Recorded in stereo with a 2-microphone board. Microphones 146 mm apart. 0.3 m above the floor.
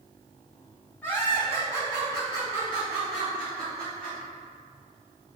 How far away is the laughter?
About 2.0 m.